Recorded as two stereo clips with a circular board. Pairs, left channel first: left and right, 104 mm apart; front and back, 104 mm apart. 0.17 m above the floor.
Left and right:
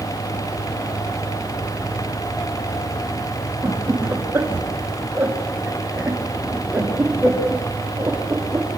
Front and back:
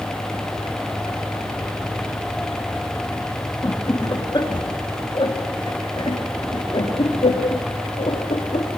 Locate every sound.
3.6 s laughter: 35° right, 2 m; by 8.8 s 15° right, 5 m